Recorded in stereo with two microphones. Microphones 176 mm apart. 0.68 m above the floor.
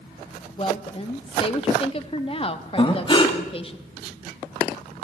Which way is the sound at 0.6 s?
35° left (ahead or behind).